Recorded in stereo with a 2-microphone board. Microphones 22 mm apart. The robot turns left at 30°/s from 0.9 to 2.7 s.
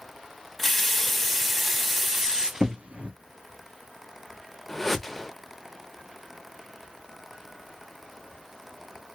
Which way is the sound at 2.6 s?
75° right (ahead or behind).